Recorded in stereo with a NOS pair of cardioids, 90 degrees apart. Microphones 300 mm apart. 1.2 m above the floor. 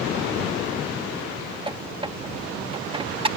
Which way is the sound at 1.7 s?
15° right.